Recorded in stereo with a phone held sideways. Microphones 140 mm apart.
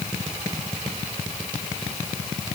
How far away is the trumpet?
No trumpet in this recording.